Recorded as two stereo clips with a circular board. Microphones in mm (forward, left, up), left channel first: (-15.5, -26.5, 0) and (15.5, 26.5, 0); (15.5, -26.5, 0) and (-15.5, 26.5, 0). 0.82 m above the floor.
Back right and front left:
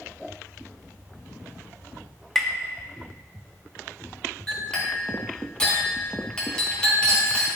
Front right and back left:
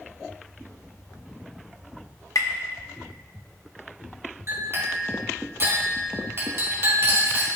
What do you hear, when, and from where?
2.4 s tapping: 35° right, 0.7 m
4.5 s a clink: 165° left, 1.9 m